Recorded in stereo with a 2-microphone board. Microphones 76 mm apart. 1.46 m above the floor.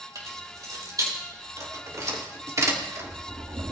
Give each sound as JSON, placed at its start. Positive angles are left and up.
{"t": 0.1, "sound": "keys jangling", "side_deg": -50, "distance_m": 4.0}